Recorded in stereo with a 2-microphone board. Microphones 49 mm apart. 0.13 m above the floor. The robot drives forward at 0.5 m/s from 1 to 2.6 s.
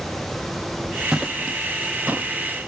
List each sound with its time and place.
1.1 s footsteps: 10° right (ahead or behind), 0.7 m; by 2.3 s 30° right (ahead or behind), 0.8 m